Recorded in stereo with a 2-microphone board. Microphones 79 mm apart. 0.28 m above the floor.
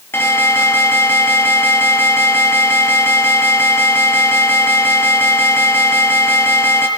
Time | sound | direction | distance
0.1 | an alarm | 30° left (ahead or behind) | 6.5 m